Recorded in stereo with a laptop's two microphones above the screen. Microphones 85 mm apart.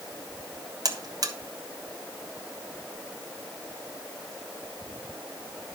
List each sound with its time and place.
0.8 s a buzzer: 45° right (ahead or behind), 1.2 m